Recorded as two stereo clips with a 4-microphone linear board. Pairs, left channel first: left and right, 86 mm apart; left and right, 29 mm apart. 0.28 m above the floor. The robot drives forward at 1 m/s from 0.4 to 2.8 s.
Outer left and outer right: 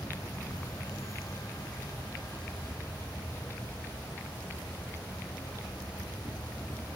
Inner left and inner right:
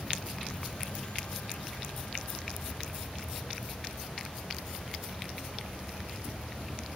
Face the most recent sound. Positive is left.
turn(degrees=25)  # may be behind; listen again after turning